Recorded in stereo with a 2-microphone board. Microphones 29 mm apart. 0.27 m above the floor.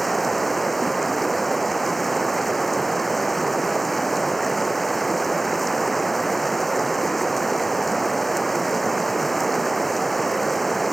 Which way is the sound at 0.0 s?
5° left (ahead or behind).